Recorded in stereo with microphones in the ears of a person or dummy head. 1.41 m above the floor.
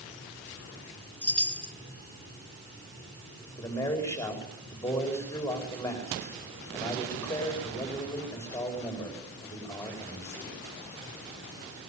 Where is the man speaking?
10° left (ahead or behind), 4.5 m.